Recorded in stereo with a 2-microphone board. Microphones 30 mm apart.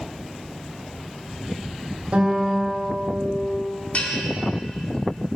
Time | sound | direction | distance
2.1 | a guitar | 45° right (ahead or behind) | 3 m
3.9 | a bell | 50° left (ahead or behind) | 1.8 m